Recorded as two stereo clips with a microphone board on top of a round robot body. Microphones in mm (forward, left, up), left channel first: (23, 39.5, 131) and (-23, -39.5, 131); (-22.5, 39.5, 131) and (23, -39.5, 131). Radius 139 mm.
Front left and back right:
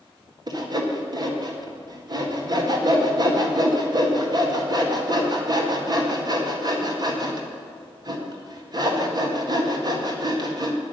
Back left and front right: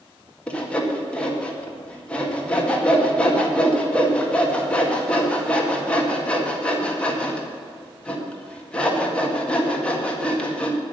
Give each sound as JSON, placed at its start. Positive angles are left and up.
{"t": 0.5, "sound": "sawing", "azimuth_deg": -165, "distance_m": 2.0}